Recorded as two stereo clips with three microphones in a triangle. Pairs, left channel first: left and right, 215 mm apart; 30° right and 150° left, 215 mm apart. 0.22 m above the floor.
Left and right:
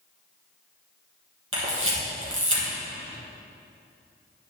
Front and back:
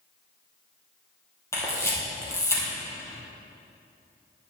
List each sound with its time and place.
1.5 s a camera shutter: 105° right, 3.5 m